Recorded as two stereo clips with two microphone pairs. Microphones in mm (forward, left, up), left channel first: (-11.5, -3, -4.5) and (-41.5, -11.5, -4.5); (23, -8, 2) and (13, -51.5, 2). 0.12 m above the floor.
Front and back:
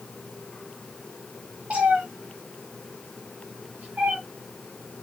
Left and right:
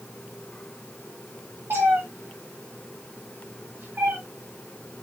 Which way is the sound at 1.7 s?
120° right.